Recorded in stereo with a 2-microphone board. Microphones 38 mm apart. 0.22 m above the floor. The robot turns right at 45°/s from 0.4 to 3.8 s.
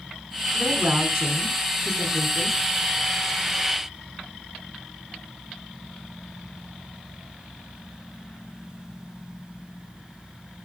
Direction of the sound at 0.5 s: 65° right.